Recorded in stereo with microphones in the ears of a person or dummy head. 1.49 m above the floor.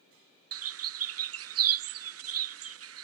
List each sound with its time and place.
0.5 s a bird: 75° right (ahead or behind)